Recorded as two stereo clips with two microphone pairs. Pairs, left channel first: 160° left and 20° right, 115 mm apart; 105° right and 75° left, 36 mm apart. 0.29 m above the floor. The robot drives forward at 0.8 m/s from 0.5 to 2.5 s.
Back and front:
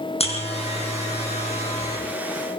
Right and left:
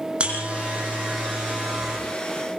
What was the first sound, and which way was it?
A buzzer, 130° left.